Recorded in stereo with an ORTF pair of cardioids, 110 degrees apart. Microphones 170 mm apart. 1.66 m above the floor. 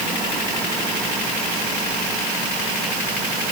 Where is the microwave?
No microwave in this recording.